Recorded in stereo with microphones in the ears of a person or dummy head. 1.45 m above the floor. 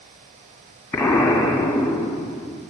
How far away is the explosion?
About 1.5 m.